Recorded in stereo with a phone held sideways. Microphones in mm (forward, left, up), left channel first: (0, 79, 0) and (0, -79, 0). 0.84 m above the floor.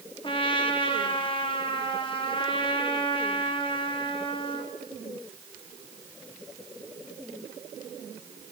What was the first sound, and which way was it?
A trumpet, 30° left (ahead or behind).